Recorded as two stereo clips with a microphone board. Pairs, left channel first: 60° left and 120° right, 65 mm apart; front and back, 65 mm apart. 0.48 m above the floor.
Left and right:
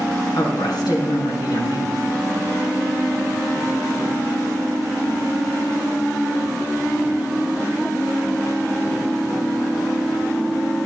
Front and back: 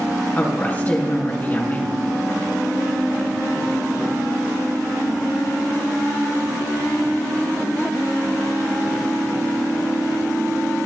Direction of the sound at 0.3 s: 65° left.